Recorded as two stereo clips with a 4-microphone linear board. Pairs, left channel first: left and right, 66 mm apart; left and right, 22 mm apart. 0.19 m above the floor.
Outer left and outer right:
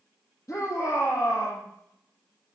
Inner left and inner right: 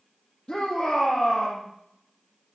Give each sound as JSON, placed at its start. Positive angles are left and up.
{"t": 0.5, "sound": "a shout", "side_deg": 50, "distance_m": 5.0}